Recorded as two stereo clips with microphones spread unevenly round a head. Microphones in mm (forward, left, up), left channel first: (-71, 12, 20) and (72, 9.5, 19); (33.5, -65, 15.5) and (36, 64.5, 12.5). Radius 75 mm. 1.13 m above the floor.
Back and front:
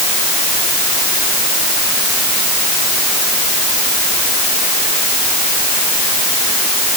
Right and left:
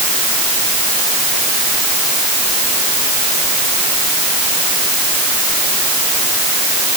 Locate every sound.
Only background noise.